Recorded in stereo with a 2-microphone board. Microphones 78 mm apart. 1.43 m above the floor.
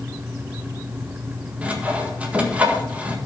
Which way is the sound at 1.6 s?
15° right (ahead or behind).